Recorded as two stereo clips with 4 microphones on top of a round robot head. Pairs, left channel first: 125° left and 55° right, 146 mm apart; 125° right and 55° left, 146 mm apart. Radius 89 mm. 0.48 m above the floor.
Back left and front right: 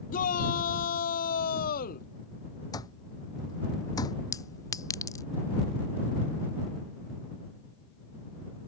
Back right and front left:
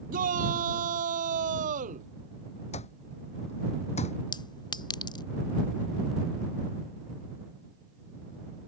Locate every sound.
0.1 s a shout: 90° left; by 2.1 s 95° left
2.7 s an alarm clock: 170° right
4.3 s a clink: 175° right